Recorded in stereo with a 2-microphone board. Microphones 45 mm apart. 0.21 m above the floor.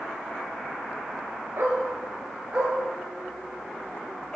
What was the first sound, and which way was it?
A dog barking, 60° right (ahead or behind).